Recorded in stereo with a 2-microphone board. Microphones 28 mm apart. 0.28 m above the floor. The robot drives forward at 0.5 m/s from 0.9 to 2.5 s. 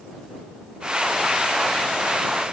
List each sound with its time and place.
Only background noise.